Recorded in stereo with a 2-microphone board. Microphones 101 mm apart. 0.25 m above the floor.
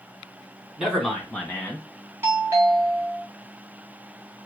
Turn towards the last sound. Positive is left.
turn(degrees=-25)  # may be behind; listen again after turning